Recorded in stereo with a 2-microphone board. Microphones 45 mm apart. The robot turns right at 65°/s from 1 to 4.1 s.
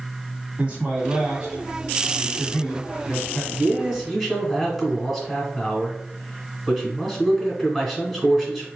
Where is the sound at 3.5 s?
45° right, 1.4 m; by 8.7 s 5° right, 1.4 m.